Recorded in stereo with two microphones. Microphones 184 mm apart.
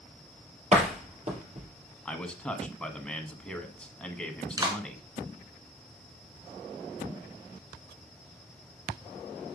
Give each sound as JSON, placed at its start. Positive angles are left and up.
{"t": 0.7, "sound": "a door slam", "side_deg": -40, "distance_m": 3.0}
{"t": 2.0, "sound": "a man speaking", "side_deg": 5, "distance_m": 1.4}
{"t": 4.6, "sound": "a clap", "side_deg": -20, "distance_m": 2.5}